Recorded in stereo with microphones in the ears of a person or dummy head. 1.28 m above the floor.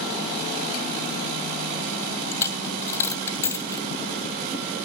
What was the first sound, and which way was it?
A dropped coin, 15° left (ahead or behind).